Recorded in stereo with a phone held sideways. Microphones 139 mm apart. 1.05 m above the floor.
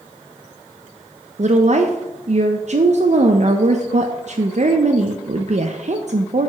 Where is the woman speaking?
55° right (ahead or behind), 0.6 m.